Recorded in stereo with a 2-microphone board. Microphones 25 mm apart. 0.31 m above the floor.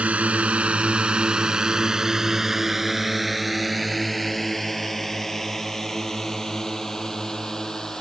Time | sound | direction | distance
0.0 | a drone | 65° right (ahead or behind) | ?